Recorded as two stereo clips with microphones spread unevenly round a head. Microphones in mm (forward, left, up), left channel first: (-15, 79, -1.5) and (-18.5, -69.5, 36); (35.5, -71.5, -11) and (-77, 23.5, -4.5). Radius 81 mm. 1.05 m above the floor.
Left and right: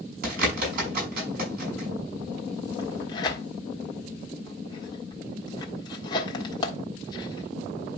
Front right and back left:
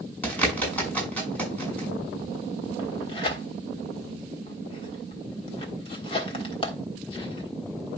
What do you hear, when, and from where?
0.2 s a bird: 120° right, 6 m
2.8 s tearing paper: 20° left, 1.4 m